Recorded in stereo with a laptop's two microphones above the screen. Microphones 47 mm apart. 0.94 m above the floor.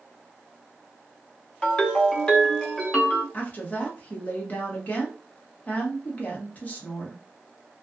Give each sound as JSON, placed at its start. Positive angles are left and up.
{"t": 1.6, "sound": "a ringtone", "side_deg": 20, "distance_m": 0.7}
{"t": 3.3, "sound": "a woman speaking", "side_deg": 35, "distance_m": 1.0}